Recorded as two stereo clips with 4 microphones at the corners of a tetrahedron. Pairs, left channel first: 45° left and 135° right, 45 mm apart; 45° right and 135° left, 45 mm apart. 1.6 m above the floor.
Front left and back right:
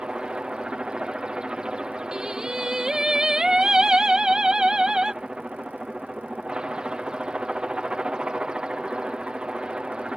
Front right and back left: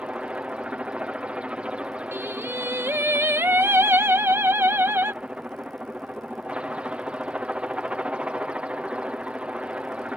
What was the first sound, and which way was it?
A helicopter, 170° left.